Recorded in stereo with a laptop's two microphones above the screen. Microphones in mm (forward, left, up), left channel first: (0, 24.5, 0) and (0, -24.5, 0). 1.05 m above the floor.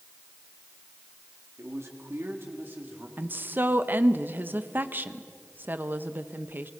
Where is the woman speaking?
45° right (ahead or behind), 0.7 m.